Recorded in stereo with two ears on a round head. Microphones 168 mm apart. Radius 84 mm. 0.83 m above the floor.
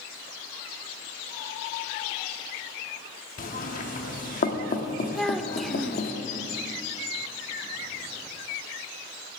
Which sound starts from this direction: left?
Knocking, at 3.4 s.